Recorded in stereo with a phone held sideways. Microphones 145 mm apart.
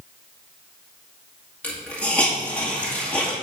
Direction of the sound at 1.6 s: 10° left (ahead or behind).